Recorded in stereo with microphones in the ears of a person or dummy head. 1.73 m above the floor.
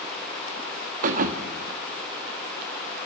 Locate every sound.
1.0 s a thud: 40° right (ahead or behind), 1.5 m